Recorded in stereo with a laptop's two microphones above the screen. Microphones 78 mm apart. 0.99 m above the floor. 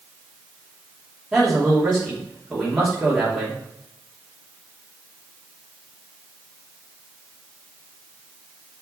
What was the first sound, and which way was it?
A man speaking, 5° right (ahead or behind).